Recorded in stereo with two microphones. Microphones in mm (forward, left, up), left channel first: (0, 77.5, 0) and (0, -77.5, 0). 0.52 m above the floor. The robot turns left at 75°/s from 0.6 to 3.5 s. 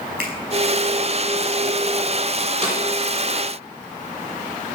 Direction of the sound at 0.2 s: 75° right (ahead or behind).